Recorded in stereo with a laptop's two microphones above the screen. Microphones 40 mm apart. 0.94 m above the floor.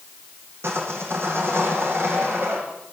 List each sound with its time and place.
0.6 s sawing: 85° right, 7.5 m